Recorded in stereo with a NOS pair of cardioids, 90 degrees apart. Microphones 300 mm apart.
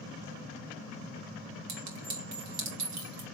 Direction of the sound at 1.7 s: 70° right.